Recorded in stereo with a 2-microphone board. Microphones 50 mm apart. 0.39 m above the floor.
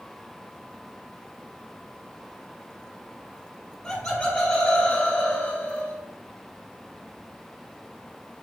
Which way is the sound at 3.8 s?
20° left (ahead or behind).